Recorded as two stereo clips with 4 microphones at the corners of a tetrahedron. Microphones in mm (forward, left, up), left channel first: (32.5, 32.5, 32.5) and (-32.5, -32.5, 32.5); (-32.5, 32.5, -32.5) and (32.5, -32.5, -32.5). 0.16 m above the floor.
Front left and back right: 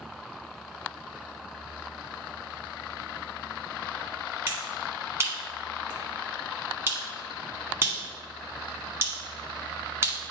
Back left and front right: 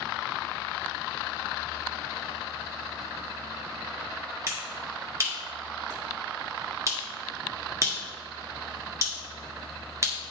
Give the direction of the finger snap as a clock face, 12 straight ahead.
3 o'clock.